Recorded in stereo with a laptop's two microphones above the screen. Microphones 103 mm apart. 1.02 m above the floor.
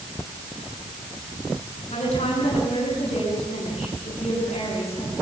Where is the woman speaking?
90° left, 9 m.